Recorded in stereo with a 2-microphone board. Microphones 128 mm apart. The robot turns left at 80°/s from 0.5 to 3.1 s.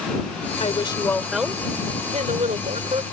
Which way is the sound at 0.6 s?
60° left.